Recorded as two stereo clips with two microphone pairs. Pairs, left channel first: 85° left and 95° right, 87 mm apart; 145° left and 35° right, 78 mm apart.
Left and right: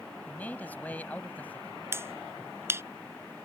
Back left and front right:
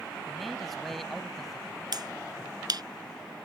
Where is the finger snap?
40° right.